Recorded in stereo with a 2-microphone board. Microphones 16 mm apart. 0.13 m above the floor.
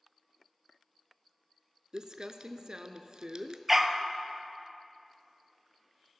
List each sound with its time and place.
1.9 s crumpling: 50° right (ahead or behind), 0.5 m
3.7 s a dog barking: 10° right (ahead or behind), 0.6 m